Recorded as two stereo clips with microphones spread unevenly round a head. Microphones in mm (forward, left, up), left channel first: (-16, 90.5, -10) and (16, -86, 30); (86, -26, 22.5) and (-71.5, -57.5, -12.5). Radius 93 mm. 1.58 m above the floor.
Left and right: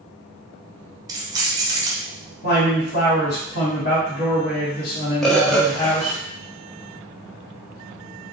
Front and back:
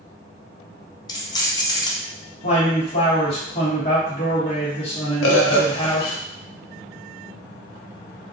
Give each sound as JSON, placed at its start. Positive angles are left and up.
{"t": 1.1, "sound": "keys jangling", "azimuth_deg": -30, "distance_m": 0.7}
{"t": 2.4, "sound": "a man speaking", "azimuth_deg": 75, "distance_m": 2.5}
{"t": 5.2, "sound": "a bird", "azimuth_deg": 15, "distance_m": 0.7}